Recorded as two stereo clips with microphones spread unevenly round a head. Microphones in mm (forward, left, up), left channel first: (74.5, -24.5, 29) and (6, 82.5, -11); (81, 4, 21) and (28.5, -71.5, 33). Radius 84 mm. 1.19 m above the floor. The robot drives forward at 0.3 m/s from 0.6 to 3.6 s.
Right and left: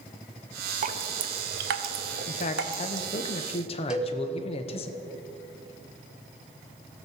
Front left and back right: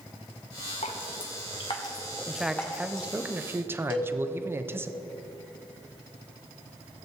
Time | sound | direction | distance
0.8 | dripping | 90° left | 0.6 m
2.3 | a man speaking | 30° right | 0.8 m
3.9 | a cowbell | 30° left | 1.1 m